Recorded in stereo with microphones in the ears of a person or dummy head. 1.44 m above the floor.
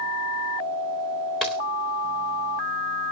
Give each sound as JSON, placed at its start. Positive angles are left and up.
{"t": 1.4, "sound": "a dropped coin", "side_deg": 5, "distance_m": 1.0}